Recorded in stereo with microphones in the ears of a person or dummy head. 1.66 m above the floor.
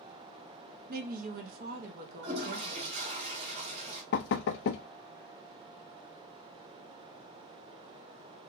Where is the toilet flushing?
35° right (ahead or behind), 1.2 m.